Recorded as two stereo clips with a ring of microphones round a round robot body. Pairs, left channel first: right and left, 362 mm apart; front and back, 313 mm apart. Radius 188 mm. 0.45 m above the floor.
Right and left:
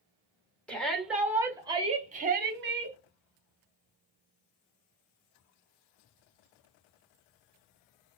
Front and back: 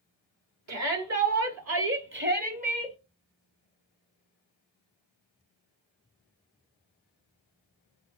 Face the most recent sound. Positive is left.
turn(degrees=115)